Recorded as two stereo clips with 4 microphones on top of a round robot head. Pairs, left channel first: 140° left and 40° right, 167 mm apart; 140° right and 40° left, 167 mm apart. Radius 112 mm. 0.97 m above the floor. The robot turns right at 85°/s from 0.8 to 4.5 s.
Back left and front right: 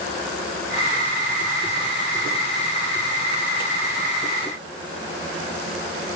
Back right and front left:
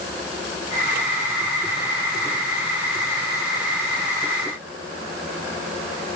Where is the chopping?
I don't hear chopping.